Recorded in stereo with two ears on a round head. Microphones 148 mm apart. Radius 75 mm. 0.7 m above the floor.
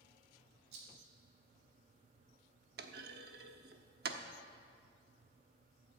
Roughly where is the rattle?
Right.